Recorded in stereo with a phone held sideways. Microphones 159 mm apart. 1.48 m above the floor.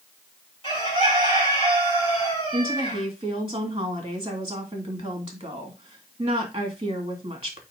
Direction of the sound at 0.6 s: 35° left (ahead or behind).